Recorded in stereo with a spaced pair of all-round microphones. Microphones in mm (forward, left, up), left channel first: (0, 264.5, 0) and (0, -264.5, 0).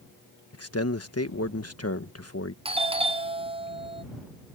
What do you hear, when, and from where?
0.5 s a man speaking: 25° left (ahead or behind)
2.6 s a doorbell: 10° right (ahead or behind)